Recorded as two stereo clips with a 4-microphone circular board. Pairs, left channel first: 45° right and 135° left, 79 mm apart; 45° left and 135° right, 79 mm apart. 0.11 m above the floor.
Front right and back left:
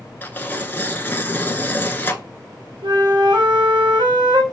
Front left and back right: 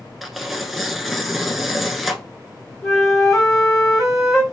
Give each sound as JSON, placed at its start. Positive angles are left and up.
{"t": 0.2, "sound": "tearing paper", "azimuth_deg": -50, "distance_m": 0.7}
{"t": 2.8, "sound": "a flute", "azimuth_deg": 135, "distance_m": 1.4}